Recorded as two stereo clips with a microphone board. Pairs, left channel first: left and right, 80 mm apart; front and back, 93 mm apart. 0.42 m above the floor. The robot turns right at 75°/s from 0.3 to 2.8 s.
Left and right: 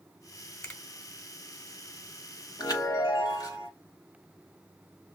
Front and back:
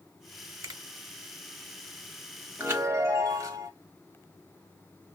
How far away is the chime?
About 1.0 m.